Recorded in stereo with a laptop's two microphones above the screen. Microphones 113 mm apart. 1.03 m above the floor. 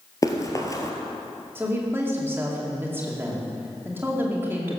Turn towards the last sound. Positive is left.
turn(degrees=-20)  # may be behind; listen again after turning